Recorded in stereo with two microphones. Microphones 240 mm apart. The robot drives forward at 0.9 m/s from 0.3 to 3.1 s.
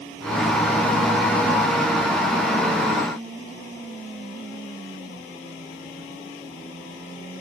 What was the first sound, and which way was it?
Only background noise.